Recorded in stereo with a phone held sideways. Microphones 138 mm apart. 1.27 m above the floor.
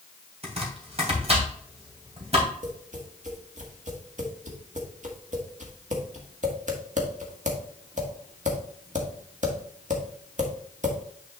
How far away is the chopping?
About 2.5 m.